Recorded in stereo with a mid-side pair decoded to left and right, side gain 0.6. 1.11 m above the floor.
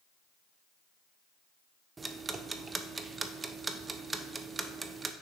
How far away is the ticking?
About 0.6 m.